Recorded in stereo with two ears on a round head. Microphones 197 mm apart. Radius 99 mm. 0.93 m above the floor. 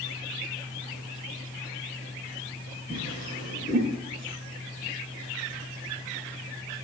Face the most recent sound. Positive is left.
turn(degrees=35)  # may be behind; listen again after turning